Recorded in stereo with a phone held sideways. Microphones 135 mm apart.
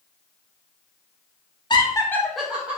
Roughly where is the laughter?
Left.